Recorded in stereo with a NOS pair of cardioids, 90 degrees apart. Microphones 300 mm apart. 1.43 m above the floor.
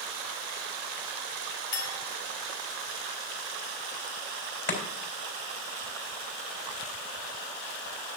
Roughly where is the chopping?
Ahead left.